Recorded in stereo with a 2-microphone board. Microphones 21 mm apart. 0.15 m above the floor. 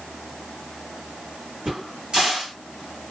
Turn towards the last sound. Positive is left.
turn(degrees=-40)  # may be behind; listen again after turning